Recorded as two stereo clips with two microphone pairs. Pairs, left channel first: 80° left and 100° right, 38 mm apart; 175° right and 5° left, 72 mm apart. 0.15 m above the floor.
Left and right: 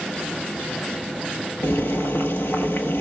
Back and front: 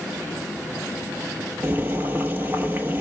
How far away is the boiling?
About 1.2 m.